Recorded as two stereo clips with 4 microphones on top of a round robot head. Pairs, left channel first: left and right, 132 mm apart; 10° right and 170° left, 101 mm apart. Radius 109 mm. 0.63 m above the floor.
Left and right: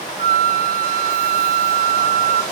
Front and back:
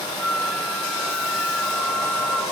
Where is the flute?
95° right, 0.7 m.